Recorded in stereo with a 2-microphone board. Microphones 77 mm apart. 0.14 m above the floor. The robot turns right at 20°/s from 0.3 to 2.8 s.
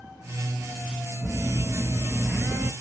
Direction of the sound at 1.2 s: 35° right (ahead or behind).